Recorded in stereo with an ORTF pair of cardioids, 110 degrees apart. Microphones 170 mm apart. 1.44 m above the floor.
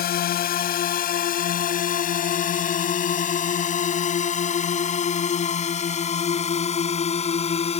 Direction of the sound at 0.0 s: 60° left.